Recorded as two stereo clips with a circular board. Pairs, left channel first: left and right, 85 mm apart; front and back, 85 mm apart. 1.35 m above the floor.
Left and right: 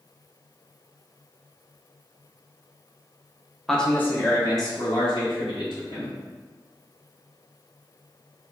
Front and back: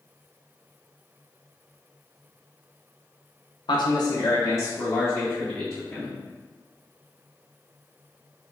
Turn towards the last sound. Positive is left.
turn(degrees=70)